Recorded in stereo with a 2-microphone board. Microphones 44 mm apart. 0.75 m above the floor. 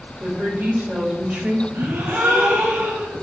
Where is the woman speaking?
40° right (ahead or behind), 1.6 m.